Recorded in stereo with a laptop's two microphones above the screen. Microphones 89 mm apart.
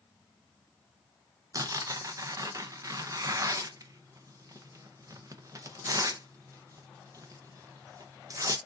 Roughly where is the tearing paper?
Right.